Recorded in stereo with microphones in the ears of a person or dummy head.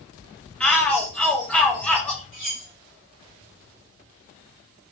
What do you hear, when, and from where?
0.6 s a shout: 5° left (ahead or behind), 0.8 m
2.3 s cutlery clinking: centre (ahead or behind), 1.5 m